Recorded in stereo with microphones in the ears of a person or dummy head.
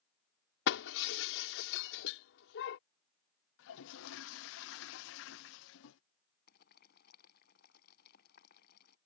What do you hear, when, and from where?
0.7 s breaking glass: 65° left (ahead or behind)
3.6 s a toilet flushing: 75° left (ahead or behind)
6.5 s boiling: 55° left (ahead or behind)